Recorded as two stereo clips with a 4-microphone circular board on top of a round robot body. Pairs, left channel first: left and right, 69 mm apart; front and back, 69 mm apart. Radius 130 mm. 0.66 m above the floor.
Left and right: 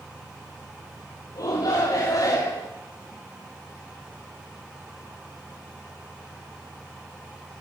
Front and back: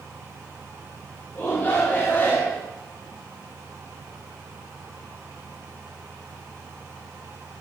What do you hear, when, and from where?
1.4 s a shout: 60° left, 2 m; by 2.7 s 65° left, 1.6 m